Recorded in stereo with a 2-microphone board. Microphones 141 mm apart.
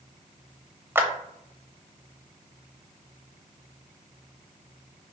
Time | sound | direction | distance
0.9 | a clap | 15° right (ahead or behind) | 0.7 m